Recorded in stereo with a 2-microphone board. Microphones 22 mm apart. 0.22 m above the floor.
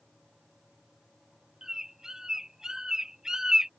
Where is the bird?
25° right (ahead or behind).